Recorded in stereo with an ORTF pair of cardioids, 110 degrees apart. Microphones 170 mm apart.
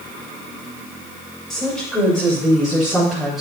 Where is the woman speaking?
Straight ahead, 5 m.